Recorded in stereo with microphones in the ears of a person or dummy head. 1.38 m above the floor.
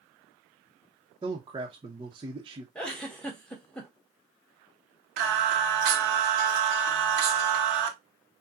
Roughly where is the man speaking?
Right.